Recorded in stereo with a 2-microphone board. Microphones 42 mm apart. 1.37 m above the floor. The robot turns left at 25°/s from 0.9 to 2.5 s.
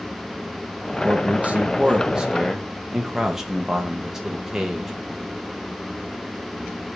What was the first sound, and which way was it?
A man speaking, 135° right.